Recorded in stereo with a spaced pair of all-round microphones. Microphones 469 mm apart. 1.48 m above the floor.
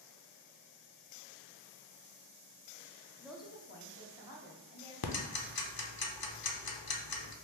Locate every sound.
3.2 s a woman speaking: 10° right (ahead or behind), 0.6 m; by 4.9 s 60° left (ahead or behind), 2.0 m
5.0 s ticking: 50° left (ahead or behind), 0.6 m